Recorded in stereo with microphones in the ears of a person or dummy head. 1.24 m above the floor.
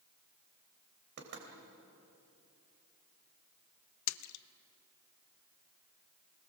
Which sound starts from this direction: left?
A splash, at 4.1 s.